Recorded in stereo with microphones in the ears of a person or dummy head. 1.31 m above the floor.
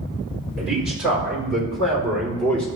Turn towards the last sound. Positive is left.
turn(degrees=5)  # may be behind; listen again after turning